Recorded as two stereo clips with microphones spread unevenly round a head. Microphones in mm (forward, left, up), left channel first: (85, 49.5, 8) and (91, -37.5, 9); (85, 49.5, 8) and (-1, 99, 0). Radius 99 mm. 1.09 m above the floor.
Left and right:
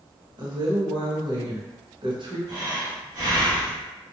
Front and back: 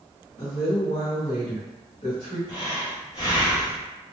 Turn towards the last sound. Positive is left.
turn(degrees=-85)